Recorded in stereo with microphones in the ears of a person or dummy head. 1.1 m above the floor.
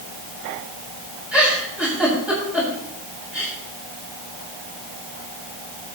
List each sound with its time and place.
1.3 s a giggle: centre (ahead or behind), 6.5 m